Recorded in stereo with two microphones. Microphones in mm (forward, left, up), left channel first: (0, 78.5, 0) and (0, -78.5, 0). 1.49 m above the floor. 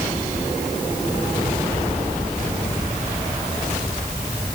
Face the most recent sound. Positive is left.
No sound to turn to.